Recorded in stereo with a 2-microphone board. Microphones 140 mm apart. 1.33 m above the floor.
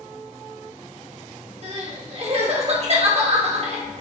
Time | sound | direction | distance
1.6 | crying | 45° right (ahead or behind) | 1.8 m